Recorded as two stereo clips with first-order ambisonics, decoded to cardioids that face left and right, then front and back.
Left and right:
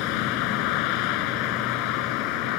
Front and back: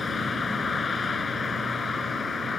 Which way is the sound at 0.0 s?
70° left.